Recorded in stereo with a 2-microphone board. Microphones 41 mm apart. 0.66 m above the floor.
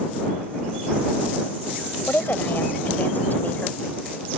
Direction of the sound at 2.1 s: 60° left (ahead or behind).